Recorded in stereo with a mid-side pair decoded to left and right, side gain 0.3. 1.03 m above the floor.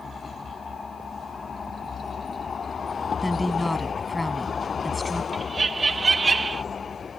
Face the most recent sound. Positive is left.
turn(degrees=-45)